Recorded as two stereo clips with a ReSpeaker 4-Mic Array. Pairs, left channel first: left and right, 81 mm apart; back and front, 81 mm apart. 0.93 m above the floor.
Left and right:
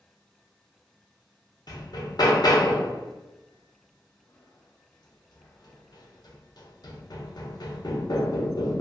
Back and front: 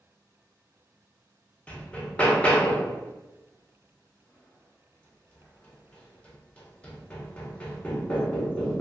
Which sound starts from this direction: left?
Hammering, at 1.7 s.